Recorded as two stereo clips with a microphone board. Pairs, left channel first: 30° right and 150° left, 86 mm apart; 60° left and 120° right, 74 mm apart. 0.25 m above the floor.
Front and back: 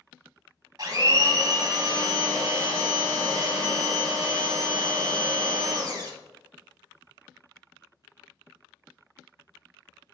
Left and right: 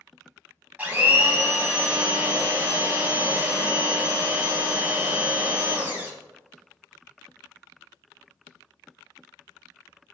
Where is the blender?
175° left, 0.6 m.